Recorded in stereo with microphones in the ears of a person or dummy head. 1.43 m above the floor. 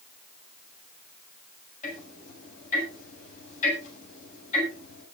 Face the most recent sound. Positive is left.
turn(degrees=55)  # may be behind; listen again after turning